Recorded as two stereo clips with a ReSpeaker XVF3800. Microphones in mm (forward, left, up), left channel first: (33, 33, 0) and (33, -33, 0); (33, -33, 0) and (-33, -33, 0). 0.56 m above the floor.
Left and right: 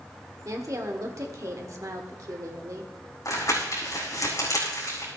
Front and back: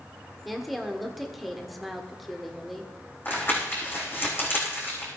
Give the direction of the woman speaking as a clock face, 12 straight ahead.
3 o'clock.